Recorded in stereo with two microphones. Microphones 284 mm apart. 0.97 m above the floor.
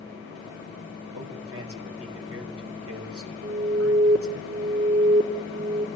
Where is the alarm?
60° right (ahead or behind), 1.4 m.